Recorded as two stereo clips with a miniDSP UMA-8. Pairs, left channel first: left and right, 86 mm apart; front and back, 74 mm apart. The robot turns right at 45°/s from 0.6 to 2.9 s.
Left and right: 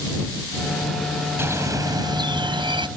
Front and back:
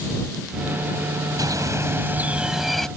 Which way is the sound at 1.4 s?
150° right.